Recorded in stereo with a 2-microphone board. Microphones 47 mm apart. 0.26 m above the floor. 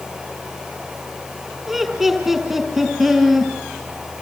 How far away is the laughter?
About 5.5 m.